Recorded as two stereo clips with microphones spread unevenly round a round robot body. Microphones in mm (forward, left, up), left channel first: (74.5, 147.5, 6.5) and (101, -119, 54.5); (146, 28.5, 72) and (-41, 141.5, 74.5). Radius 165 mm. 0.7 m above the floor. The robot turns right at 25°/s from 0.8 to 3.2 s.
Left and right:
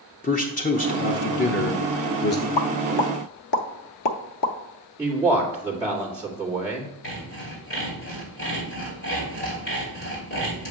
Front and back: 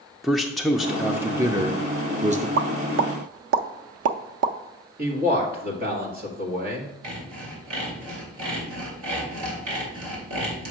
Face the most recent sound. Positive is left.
turn(degrees=160)